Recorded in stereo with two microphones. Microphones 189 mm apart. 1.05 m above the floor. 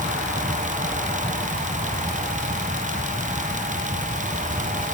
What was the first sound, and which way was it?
Only background noise.